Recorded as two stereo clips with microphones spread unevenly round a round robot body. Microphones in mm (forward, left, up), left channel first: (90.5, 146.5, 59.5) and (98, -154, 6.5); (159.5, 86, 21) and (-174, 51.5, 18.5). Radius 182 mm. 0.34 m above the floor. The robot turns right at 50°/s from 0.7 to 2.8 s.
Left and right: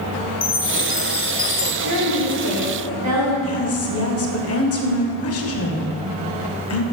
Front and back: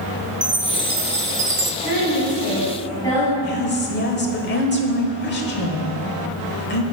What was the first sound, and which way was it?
A chime, 135° left.